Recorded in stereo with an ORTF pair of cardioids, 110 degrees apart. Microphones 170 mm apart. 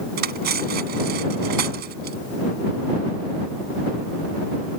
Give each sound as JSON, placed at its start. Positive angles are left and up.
{"t": 0.2, "sound": "cutlery clinking", "azimuth_deg": -70}